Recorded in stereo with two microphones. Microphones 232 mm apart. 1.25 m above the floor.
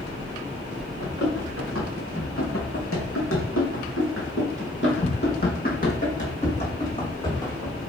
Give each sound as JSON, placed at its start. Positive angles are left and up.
{"t": 1.0, "sound": "running footsteps", "side_deg": 60, "distance_m": 4.0}